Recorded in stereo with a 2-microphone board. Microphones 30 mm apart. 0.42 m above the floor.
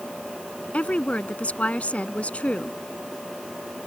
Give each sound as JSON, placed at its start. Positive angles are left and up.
{"t": 0.7, "sound": "a woman speaking", "side_deg": 55}